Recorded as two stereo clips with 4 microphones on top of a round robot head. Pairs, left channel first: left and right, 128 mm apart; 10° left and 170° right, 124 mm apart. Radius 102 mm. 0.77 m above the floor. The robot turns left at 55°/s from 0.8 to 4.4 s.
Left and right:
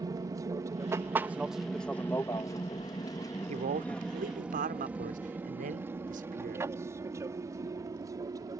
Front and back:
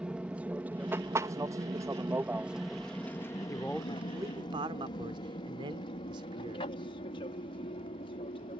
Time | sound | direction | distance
0.0 | an aircraft | 95° right | ?
3.5 | a man speaking | 60° right | ?